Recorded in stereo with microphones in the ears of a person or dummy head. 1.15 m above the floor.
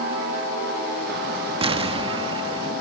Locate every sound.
1.6 s an explosion: 35° right (ahead or behind), 1.1 m